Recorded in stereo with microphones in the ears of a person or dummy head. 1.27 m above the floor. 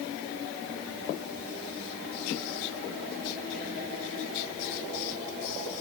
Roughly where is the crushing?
I don't hear crushing.